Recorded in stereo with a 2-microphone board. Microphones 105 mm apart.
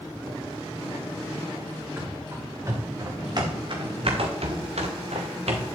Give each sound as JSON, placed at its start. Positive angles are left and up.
{"t": 2.0, "sound": "running footsteps", "side_deg": -20, "distance_m": 4.5}